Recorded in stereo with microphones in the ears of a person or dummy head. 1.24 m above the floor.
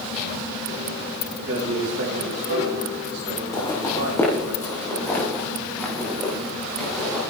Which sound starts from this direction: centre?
Footsteps, at 3.5 s.